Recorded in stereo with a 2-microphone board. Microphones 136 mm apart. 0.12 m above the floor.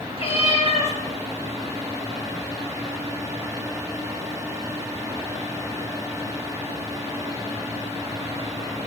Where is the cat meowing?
45° left (ahead or behind), 1.4 m.